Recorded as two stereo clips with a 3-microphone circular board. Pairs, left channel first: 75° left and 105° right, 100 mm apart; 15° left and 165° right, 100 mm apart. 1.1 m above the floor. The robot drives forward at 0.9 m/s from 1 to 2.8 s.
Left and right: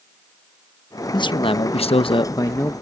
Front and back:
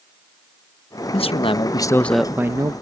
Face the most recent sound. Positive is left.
turn(degrees=145)